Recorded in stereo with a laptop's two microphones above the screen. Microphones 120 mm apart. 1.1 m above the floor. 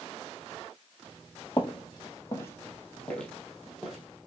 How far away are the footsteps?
About 1.4 m.